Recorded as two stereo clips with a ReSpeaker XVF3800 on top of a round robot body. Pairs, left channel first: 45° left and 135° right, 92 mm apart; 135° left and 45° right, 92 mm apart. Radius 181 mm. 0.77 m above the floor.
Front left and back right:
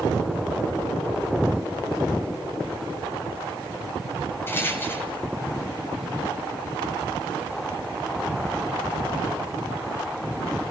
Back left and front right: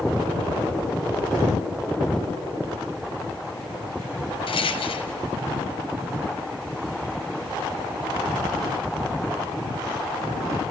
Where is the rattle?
110° left, 1.1 m.